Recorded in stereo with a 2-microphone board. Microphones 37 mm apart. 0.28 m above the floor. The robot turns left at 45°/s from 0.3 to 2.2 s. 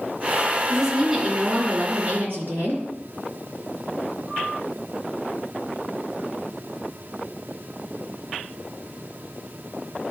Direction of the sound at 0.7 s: 10° left.